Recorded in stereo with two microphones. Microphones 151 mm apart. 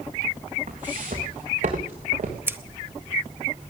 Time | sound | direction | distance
0.7 | footsteps | 70° right (ahead or behind) | 3.5 m
2.5 | scissors | 15° right (ahead or behind) | 0.6 m